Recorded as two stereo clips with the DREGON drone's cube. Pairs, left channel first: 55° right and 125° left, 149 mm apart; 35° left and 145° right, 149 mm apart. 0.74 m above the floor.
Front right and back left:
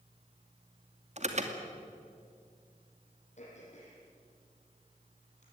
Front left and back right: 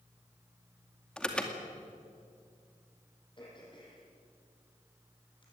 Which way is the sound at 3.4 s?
20° right.